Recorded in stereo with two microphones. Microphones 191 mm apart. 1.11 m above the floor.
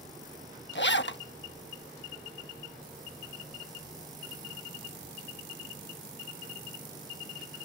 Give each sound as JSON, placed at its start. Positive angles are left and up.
{"t": 0.8, "sound": "a zipper", "side_deg": 70}